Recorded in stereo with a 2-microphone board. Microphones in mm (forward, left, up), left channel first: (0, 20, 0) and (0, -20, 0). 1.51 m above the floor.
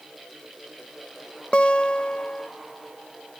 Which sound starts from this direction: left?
A guitar, at 1.5 s.